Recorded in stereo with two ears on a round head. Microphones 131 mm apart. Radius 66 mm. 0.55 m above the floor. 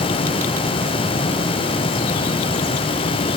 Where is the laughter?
No laughter in this recording.